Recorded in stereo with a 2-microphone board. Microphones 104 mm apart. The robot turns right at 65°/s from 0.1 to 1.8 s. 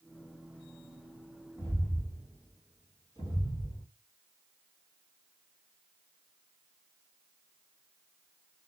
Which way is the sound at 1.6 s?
35° right (ahead or behind).